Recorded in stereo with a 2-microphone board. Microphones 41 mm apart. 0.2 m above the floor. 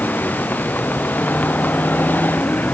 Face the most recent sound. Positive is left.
turn(degrees=45)  # may be behind; listen again after turning